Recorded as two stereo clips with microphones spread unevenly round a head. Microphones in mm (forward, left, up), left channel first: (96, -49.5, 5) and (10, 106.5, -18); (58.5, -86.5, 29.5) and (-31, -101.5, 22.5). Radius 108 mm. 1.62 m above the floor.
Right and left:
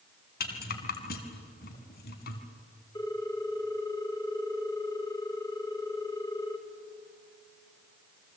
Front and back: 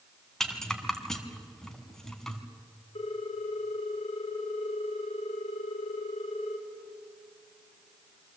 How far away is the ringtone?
About 2.5 m.